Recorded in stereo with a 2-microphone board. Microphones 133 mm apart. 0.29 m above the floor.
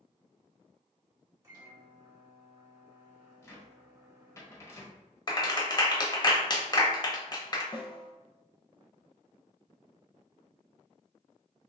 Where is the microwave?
25° right (ahead or behind), 1.6 m.